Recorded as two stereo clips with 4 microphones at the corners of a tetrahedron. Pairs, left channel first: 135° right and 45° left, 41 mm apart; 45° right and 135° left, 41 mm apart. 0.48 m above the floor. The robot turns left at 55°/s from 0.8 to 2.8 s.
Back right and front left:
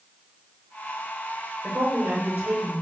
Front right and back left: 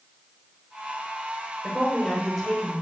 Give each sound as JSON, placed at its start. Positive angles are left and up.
{"t": 1.6, "sound": "a woman speaking", "azimuth_deg": 85, "distance_m": 1.0}